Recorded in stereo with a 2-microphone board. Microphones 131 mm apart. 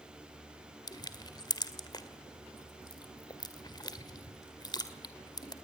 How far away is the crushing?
About 1.7 m.